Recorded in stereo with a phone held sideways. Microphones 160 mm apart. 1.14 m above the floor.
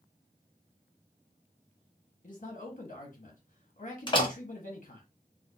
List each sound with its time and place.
2.2 s a man speaking: 55° left (ahead or behind), 1.1 m
4.1 s a door slam: 30° left (ahead or behind), 0.7 m